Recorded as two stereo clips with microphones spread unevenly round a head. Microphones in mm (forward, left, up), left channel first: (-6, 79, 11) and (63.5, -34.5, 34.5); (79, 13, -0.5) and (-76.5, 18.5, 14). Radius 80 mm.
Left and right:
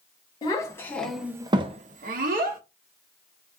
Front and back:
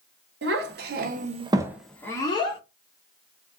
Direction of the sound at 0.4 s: Straight behind.